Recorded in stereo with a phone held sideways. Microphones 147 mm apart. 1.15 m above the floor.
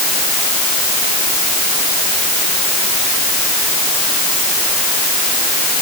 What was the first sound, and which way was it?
Only background noise.